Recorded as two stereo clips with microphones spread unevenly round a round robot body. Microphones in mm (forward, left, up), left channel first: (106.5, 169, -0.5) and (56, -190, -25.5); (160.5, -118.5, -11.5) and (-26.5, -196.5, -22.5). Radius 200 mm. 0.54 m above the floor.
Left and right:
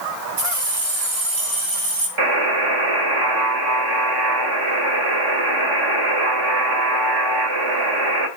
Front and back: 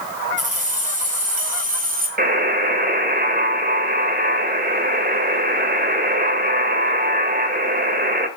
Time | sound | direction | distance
0.4 | keys jangling | 105° right | 5 m
2.2 | a buzzer | 120° right | 2 m